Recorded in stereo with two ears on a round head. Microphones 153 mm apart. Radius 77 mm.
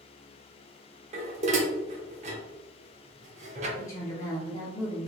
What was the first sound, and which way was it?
Dishes clattering, 40° right (ahead or behind).